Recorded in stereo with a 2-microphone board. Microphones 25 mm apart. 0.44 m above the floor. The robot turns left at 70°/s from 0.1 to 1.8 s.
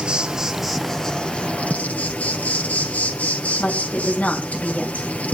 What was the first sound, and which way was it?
An insect, 145° right.